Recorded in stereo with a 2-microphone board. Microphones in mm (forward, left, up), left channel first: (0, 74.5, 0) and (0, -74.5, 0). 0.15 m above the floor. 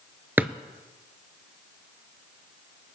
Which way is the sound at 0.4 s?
10° right (ahead or behind).